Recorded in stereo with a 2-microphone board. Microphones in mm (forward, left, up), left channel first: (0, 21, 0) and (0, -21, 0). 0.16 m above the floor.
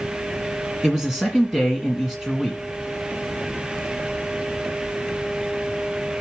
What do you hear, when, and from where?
0.8 s a man speaking: 10° right (ahead or behind), 1.8 m